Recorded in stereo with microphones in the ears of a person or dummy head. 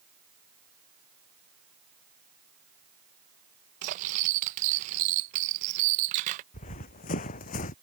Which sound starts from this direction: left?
Running footsteps, at 6.5 s.